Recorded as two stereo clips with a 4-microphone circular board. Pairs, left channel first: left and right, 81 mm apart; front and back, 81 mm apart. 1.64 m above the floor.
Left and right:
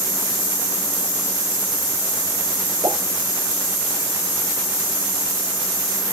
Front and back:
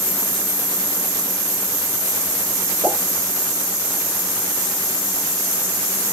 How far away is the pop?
About 8.5 m.